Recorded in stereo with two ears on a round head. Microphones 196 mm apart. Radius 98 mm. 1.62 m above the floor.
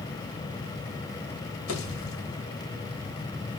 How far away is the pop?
About 2.5 m.